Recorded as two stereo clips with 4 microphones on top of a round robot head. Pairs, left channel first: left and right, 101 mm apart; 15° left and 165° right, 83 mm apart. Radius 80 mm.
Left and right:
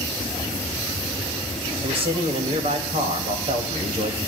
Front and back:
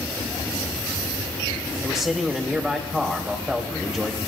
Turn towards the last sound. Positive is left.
turn(degrees=-85)